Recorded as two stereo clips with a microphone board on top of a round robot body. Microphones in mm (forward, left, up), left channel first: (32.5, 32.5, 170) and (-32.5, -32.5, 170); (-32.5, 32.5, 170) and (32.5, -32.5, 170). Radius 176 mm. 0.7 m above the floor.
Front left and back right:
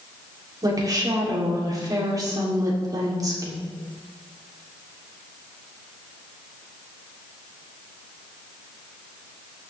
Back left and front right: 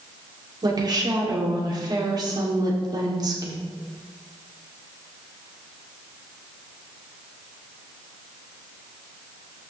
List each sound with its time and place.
0.6 s a woman speaking: 85° right, 3 m